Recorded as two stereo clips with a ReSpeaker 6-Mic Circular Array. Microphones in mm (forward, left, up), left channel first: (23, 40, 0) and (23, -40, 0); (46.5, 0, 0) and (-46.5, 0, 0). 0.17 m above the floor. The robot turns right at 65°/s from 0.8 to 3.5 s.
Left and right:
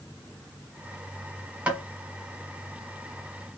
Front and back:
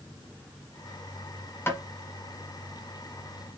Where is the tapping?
30° right, 1.5 m; by 1.8 s 20° right, 1.5 m.